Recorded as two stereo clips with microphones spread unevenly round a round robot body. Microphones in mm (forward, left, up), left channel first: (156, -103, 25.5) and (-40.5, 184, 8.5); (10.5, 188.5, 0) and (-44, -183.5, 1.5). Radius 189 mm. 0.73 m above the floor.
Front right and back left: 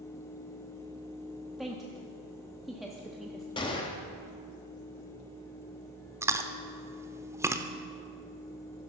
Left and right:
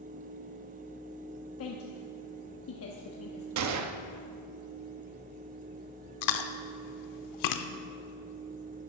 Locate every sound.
1.6 s a woman speaking: 35° left, 1.0 m
3.6 s a gunshot: 130° right, 0.8 m
6.2 s chewing: 40° left, 0.7 m